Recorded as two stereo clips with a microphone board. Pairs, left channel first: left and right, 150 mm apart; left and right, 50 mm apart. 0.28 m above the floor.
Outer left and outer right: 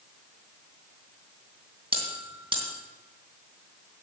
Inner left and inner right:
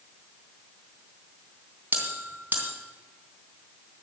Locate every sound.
1.9 s a bell: 35° right (ahead or behind), 3 m